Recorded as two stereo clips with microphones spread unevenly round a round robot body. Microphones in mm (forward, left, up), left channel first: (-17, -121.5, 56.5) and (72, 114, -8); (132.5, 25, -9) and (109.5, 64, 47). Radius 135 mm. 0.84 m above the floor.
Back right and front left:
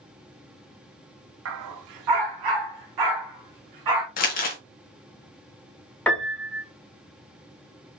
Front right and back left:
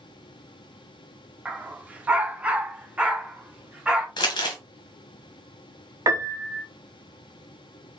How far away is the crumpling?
About 1.1 m.